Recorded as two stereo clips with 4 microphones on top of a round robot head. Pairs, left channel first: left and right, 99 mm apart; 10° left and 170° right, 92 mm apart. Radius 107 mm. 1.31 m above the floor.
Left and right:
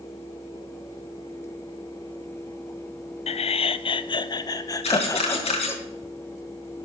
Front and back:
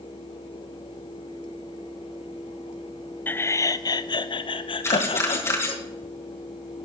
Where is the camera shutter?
70° left, 4 m.